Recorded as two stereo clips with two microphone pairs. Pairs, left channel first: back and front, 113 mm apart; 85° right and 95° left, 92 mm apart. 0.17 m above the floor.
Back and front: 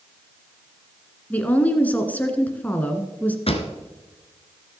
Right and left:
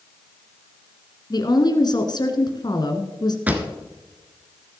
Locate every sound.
1.3 s a woman speaking: 105° right, 1.6 m
3.5 s a pop: 165° left, 1.4 m